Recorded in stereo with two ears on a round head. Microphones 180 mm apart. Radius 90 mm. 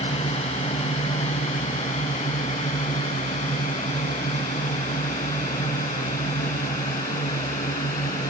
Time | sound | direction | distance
0.0 | a drone | 35° left (ahead or behind) | ?